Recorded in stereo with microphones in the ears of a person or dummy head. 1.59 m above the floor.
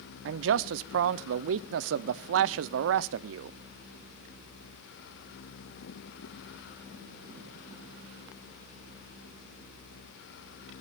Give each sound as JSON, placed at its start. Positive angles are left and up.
{"t": 0.2, "sound": "a man speaking", "side_deg": -75, "distance_m": 0.5}